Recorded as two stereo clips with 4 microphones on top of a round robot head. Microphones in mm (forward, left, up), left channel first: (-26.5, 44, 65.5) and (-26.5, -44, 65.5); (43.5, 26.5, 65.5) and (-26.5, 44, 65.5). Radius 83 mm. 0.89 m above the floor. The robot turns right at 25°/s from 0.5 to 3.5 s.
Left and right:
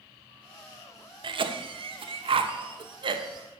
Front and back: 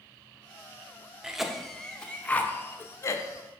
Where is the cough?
110° right, 0.7 m; by 3.5 s 55° right, 0.7 m.